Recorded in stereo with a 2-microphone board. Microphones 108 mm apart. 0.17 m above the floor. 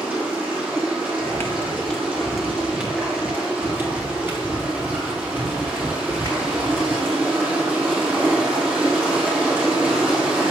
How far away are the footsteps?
About 2.5 m.